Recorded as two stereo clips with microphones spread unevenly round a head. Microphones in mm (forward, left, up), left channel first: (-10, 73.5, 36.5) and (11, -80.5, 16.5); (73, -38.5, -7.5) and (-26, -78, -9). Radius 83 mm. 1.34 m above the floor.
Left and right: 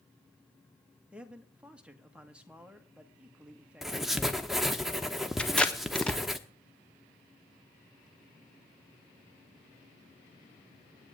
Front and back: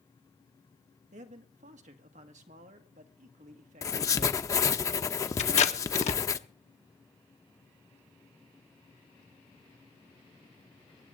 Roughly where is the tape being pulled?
Ahead.